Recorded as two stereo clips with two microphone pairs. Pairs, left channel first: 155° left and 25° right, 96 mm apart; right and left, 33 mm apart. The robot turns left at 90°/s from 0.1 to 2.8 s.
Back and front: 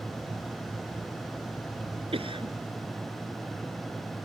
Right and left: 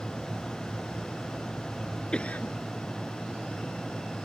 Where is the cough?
30° right; by 2.5 s 65° right.